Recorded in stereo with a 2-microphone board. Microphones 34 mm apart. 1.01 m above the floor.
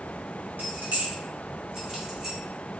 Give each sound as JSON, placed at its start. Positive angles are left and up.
{"t": 0.6, "sound": "keys jangling", "side_deg": -75, "distance_m": 0.8}